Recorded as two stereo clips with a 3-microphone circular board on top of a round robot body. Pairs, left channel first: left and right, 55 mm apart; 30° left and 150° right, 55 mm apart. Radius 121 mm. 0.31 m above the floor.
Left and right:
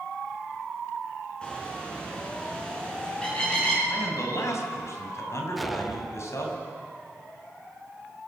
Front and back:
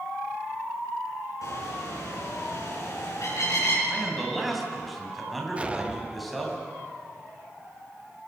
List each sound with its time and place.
1.4 s a bird: 15° left, 6.5 m
3.9 s a man speaking: 120° left, 4 m
5.6 s an explosion: 175° right, 0.8 m